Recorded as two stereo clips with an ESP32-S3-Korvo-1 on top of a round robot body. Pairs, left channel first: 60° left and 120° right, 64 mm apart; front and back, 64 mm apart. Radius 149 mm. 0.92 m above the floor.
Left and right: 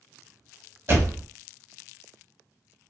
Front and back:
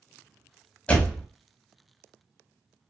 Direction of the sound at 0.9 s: 70° right.